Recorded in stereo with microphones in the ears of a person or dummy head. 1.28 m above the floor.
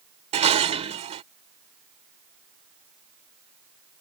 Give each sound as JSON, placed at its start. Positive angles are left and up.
{"t": 0.3, "sound": "dishes clattering", "side_deg": -35}